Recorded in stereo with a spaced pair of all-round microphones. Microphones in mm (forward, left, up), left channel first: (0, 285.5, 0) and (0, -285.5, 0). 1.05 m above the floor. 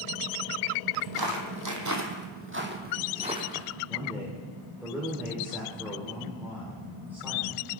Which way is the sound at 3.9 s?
5° right (ahead or behind).